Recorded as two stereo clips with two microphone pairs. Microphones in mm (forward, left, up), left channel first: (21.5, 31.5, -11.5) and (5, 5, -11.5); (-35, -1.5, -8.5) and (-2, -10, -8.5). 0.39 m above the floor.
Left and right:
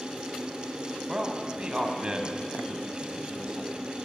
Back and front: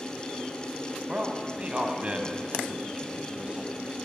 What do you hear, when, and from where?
1.1 s a man speaking: 65° right, 3 m